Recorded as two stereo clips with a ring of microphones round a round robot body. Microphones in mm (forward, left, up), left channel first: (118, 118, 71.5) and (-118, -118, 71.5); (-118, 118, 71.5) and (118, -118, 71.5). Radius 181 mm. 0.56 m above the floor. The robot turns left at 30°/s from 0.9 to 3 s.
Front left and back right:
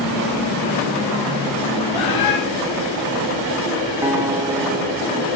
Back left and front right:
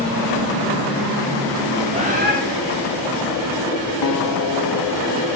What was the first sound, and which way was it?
A bird, 30° left.